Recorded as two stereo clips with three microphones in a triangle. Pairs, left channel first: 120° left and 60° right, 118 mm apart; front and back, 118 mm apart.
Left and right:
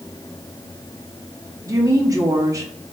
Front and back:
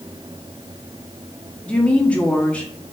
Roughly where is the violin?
No violin in this recording.